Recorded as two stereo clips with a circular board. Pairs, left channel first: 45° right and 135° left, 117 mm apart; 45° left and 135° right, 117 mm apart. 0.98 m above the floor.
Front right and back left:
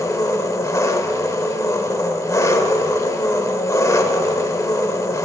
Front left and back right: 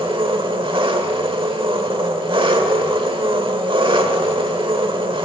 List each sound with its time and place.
0.0 s an engine running: 100° right, 1.1 m